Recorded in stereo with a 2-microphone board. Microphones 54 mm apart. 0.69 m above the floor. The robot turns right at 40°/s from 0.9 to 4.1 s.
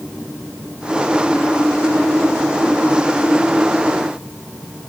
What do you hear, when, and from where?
Only background noise.